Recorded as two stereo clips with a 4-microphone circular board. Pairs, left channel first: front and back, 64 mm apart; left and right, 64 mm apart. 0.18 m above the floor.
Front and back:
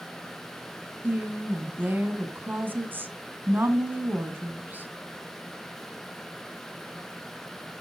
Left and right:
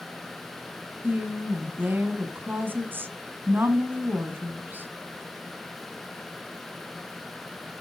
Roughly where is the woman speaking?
Behind right.